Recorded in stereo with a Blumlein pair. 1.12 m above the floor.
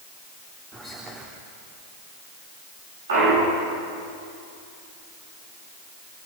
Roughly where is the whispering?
Ahead.